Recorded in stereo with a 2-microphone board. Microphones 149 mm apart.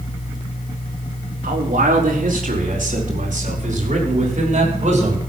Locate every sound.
1.4 s a man speaking: 70° right (ahead or behind), 3.5 m; by 5.2 s 50° right (ahead or behind), 5.5 m